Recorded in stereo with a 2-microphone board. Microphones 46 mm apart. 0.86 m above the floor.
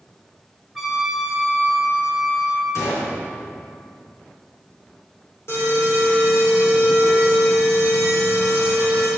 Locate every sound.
0.8 s a trumpet: 10° left (ahead or behind), 3 m
2.8 s a gunshot: 80° left, 4 m
5.5 s an alarm: 65° left (ahead or behind), 4.5 m